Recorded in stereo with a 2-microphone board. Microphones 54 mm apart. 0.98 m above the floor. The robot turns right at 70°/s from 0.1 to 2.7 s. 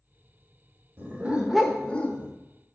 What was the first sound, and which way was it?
A dog barking, 45° right.